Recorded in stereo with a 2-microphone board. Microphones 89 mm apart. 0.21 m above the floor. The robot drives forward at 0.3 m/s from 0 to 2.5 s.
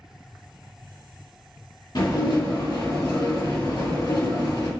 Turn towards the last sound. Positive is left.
turn(degrees=60)  # may be behind; listen again after turning